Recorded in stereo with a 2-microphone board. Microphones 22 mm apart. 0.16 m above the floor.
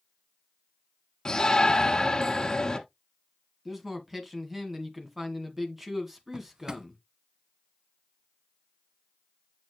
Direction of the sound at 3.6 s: 10° right (ahead or behind).